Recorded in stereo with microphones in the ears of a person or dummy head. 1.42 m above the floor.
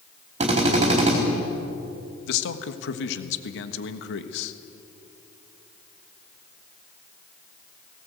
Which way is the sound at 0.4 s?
35° right (ahead or behind).